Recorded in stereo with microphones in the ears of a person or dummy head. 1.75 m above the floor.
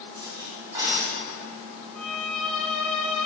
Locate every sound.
0.1 s cutlery clinking: 20° right (ahead or behind), 1.7 m
1.9 s a violin: 5° left (ahead or behind), 0.6 m